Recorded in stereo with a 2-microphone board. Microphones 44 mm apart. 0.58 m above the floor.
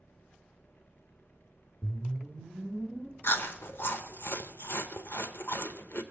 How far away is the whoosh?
About 0.8 m.